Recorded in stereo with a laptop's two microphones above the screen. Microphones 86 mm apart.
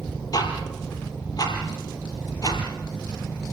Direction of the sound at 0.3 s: 45° left (ahead or behind).